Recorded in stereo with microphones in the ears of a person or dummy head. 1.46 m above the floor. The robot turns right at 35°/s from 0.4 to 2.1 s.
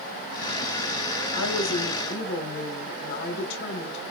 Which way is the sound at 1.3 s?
85° left.